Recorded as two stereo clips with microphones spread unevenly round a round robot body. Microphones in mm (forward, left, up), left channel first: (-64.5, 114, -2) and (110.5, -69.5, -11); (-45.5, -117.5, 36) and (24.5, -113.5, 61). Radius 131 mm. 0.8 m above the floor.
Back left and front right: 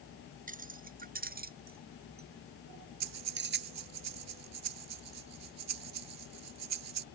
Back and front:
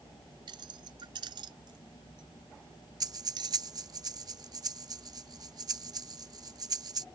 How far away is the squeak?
I don't hear a squeak.